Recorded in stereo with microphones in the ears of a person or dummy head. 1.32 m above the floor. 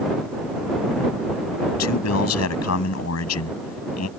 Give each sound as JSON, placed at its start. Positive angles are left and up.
{"t": 1.8, "sound": "a man speaking", "side_deg": 85}